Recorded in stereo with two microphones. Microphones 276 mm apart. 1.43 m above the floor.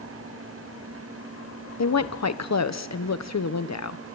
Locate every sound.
1.8 s a woman speaking: 70° left (ahead or behind), 1.0 m